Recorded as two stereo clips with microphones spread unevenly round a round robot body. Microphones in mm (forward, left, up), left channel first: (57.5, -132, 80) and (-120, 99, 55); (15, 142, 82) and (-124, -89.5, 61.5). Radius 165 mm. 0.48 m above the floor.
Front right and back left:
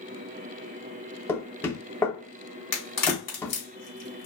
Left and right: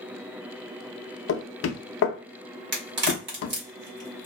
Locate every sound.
1.3 s knocking: 30° left, 0.5 m
2.7 s a crack: 90° right, 1.8 m